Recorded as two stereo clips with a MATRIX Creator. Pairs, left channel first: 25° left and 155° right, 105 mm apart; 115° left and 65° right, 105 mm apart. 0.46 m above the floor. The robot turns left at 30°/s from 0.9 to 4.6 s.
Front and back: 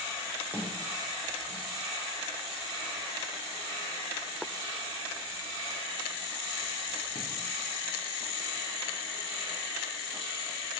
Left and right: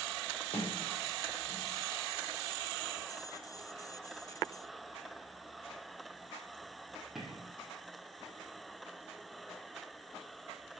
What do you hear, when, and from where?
0.5 s a sliding door: 130° left, 3 m; by 7.5 s 20° left, 3 m